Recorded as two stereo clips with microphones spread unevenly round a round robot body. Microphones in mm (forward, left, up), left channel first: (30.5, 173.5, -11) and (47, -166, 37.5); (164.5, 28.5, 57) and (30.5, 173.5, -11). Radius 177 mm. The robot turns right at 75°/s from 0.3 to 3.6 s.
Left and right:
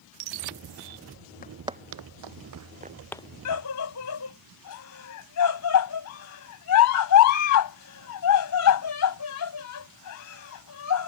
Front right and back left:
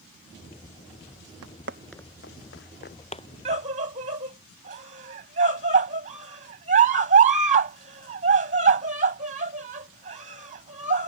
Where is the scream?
105° left; by 11.1 s 115° left.